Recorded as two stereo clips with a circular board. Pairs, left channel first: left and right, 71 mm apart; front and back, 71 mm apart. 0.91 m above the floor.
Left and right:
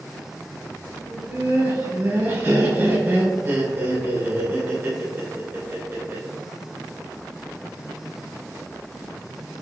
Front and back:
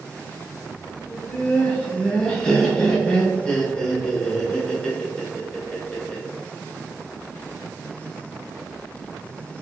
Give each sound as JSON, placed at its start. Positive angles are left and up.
{"t": 1.1, "sound": "laughter", "azimuth_deg": -70, "distance_m": 1.0}